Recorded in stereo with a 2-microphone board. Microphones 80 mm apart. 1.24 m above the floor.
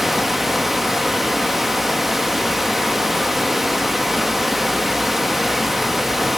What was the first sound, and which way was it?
Running water, 5° right (ahead or behind).